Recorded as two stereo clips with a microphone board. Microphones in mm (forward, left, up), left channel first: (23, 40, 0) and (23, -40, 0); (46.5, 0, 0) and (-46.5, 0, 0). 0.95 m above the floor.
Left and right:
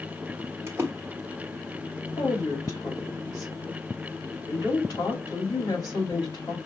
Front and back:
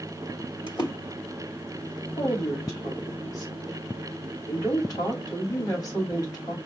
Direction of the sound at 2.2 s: 50° left.